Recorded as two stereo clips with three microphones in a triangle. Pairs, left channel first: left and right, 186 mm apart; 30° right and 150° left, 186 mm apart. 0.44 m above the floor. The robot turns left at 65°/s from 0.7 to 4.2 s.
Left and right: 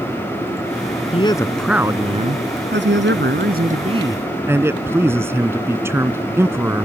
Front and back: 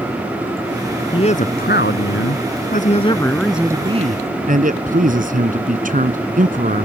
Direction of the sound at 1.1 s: 35° left.